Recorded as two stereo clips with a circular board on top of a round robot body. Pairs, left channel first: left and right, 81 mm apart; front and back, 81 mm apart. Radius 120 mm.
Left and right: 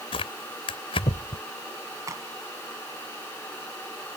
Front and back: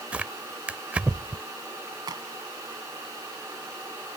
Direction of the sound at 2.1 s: 140° right.